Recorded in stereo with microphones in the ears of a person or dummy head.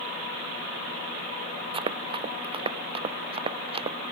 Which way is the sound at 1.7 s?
25° right (ahead or behind).